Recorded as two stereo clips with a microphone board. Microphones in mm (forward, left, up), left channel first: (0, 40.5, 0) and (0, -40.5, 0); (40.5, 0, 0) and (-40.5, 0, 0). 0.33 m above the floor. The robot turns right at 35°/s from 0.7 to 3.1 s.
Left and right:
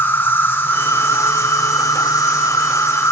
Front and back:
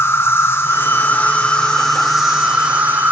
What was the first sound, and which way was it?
An insect, 40° left.